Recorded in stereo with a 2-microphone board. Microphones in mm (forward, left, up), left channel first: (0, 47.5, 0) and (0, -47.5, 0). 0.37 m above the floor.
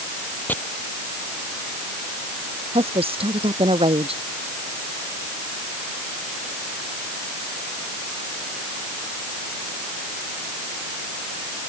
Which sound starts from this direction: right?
A woman speaking, at 2.7 s.